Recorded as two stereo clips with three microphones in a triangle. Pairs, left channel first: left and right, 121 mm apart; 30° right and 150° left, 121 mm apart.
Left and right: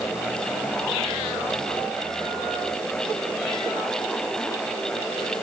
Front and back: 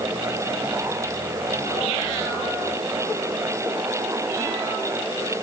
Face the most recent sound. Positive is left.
No sound to turn to.